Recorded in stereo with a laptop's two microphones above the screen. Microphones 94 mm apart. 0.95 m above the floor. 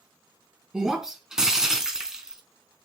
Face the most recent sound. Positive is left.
turn(degrees=-5)  # may be behind; listen again after turning